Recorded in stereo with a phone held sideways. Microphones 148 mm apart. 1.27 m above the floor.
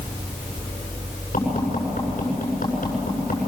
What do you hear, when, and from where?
1.3 s tapping: 65° left (ahead or behind), 8 m